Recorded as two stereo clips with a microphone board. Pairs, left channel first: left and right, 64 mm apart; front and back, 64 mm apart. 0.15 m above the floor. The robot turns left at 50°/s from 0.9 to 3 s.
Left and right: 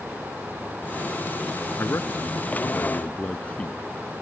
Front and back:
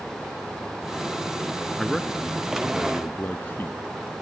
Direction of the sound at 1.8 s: 90° left.